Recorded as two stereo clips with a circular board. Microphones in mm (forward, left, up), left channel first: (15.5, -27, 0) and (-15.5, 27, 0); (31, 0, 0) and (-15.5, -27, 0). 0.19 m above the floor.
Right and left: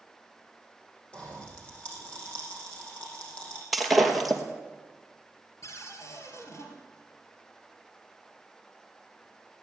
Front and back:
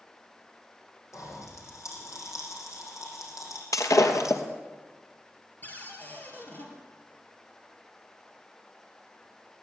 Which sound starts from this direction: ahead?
A pop, at 1.1 s.